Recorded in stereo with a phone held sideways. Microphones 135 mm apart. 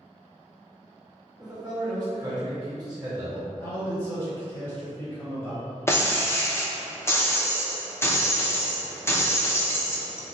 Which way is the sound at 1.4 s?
30° right (ahead or behind).